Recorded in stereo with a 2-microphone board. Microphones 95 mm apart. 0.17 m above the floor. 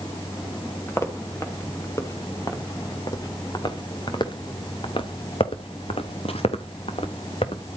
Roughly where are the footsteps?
Left.